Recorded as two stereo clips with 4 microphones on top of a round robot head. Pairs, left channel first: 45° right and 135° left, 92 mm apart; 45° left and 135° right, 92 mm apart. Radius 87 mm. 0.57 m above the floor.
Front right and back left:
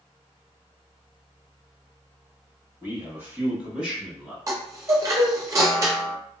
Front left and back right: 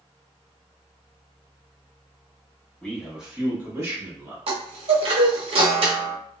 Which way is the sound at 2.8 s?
125° left.